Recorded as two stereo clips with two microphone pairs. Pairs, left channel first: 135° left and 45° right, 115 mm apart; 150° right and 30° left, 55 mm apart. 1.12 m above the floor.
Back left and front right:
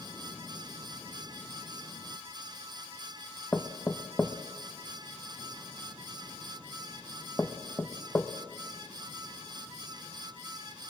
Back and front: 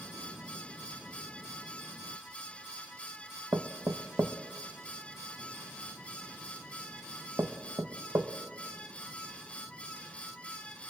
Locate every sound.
3.5 s knocking: 55° left, 1.1 m